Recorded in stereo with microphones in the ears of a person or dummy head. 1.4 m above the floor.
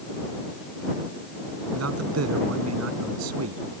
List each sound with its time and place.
1.8 s a man speaking: 80° right